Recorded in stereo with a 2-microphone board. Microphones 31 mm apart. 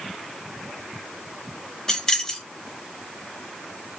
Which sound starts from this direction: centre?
Keys jangling, at 1.9 s.